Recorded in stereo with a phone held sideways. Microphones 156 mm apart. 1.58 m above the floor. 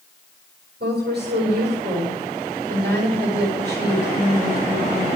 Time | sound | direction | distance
0.8 | a woman speaking | 85° right | 8 m